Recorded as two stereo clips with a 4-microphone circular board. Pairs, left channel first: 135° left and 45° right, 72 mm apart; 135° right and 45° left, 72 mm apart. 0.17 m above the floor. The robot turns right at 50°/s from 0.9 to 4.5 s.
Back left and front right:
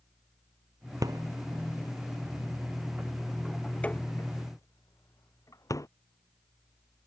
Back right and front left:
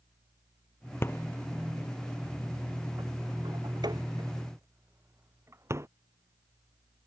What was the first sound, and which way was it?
A rattle, 80° right.